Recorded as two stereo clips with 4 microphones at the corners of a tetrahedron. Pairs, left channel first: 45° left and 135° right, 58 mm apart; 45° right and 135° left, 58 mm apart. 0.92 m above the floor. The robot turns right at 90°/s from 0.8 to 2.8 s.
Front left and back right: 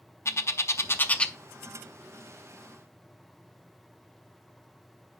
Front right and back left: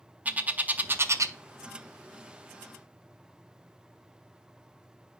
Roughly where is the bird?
Left.